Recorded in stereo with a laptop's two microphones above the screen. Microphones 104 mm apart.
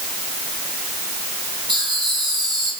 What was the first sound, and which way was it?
Laughter, 50° right (ahead or behind).